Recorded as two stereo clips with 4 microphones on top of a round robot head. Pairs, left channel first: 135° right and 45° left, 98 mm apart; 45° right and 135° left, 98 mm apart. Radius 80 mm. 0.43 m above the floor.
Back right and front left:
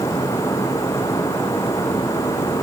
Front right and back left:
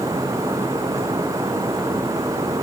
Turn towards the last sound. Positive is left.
No sound to turn to.